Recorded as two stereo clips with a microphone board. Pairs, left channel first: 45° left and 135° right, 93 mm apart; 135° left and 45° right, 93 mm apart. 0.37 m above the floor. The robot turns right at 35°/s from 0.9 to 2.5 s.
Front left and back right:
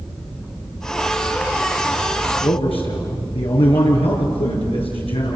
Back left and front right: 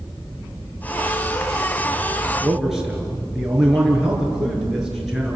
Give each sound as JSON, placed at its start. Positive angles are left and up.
{"t": 2.4, "sound": "a man speaking", "azimuth_deg": 35, "distance_m": 5.5}